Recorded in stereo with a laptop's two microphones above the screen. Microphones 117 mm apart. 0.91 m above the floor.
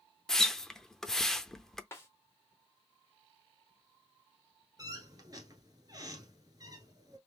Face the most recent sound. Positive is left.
turn(degrees=-35)  # may be behind; listen again after turning